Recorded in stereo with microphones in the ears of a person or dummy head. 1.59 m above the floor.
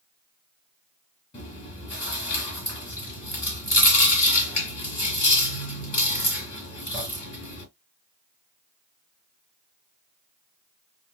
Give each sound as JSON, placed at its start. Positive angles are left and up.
{"t": 1.3, "sound": "chewing", "side_deg": 30, "distance_m": 3.5}